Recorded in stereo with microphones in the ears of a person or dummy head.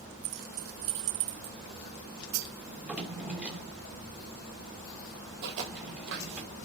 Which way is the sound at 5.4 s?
55° right (ahead or behind).